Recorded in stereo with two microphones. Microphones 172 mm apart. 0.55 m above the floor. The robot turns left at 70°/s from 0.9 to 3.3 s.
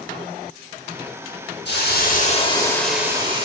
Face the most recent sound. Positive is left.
turn(degrees=-30)